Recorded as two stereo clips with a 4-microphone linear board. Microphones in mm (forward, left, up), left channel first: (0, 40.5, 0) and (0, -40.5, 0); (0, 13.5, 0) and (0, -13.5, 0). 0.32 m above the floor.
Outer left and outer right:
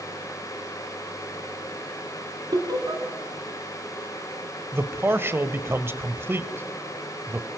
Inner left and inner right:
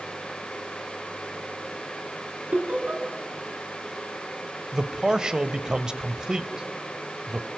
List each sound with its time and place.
2.5 s laughter: 50° right (ahead or behind), 2.5 m
4.7 s a man speaking: 30° right (ahead or behind), 1.4 m